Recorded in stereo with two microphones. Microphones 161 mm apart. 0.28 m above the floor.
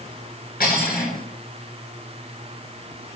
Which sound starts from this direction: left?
Cutlery clinking, at 0.6 s.